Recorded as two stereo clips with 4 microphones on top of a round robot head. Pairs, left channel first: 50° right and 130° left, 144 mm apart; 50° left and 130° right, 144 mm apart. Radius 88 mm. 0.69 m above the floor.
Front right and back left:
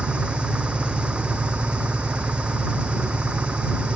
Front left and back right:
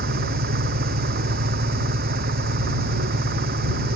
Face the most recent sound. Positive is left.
turn(degrees=-150)